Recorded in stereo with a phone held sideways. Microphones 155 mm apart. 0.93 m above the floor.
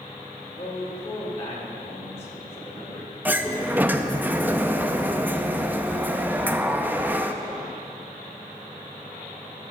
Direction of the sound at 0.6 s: 45° left (ahead or behind).